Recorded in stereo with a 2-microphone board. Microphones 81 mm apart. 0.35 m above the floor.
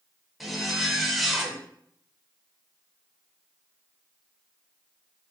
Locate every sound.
0.4 s a zipper: centre (ahead or behind), 0.6 m